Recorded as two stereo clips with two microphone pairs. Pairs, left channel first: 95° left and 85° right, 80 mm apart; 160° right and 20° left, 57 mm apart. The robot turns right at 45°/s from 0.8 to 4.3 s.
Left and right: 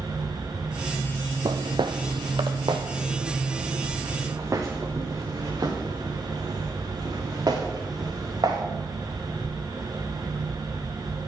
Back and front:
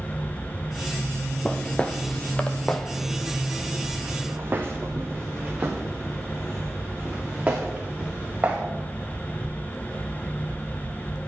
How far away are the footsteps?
About 0.8 m.